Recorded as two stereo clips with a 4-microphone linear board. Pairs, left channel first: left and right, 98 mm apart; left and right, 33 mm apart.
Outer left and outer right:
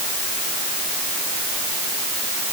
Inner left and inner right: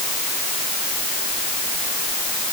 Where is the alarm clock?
I don't hear an alarm clock.